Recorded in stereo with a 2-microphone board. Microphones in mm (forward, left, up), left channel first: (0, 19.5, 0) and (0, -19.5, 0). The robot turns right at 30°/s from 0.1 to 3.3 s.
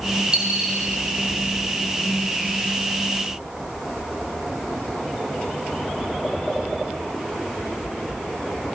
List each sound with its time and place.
0.3 s a dropped coin: 25° right (ahead or behind), 8 m; by 0.8 s 10° right (ahead or behind), 8 m